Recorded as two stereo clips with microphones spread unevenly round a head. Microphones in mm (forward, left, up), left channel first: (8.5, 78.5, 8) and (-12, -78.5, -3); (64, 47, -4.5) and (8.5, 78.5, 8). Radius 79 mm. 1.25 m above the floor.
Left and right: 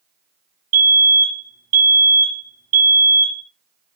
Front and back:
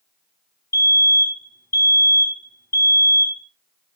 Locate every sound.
0.7 s a fire alarm: 70° right, 2 m